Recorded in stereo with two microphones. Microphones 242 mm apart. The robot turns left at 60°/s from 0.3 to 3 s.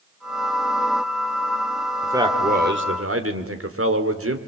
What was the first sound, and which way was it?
A man speaking, 5° right.